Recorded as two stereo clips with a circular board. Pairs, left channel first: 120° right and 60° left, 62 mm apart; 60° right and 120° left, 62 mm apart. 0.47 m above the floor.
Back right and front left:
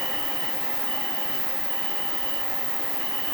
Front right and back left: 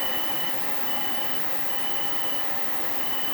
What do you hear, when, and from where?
0.0 s an insect: 145° right, 2.0 m